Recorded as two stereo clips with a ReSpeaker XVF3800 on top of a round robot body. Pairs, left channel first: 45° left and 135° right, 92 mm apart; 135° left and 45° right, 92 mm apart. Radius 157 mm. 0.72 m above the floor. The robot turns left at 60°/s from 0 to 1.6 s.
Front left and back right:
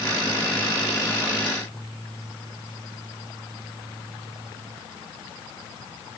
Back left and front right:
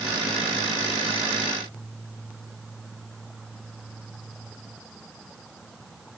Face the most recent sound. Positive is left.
No sound to turn to.